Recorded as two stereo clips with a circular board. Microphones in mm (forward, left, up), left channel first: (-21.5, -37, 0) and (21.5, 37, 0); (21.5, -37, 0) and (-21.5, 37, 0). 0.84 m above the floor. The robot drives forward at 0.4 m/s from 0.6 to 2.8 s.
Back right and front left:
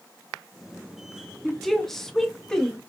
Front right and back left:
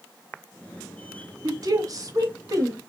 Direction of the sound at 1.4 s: 150° left.